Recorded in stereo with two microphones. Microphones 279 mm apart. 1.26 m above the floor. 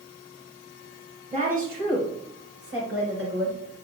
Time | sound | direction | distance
1.3 | a woman speaking | 25° right (ahead or behind) | 5 m